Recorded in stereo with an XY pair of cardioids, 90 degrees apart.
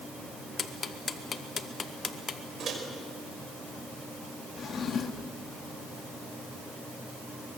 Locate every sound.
0.6 s ticking: 45° left, 1.6 m
2.6 s a microwave: 55° right, 5 m
4.6 s a drawer: 55° left, 1.6 m